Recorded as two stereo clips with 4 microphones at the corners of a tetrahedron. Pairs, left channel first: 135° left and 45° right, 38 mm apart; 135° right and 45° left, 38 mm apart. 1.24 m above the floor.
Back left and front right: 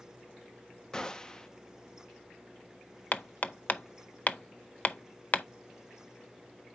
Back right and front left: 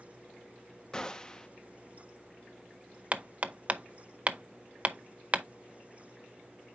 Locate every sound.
0.9 s a gunshot: 175° right, 0.6 m
3.1 s hammering: 95° left, 0.5 m